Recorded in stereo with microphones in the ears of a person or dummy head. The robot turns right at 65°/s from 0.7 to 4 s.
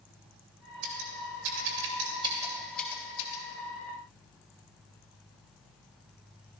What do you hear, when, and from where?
0.8 s scissors: 55° right (ahead or behind), 2.5 m; by 3.4 s 45° left (ahead or behind), 2.5 m